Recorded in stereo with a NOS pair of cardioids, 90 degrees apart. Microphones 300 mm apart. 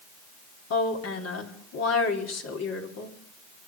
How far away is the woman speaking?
About 4 m.